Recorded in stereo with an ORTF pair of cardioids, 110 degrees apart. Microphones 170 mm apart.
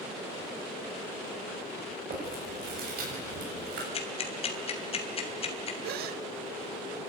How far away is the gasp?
About 1.1 m.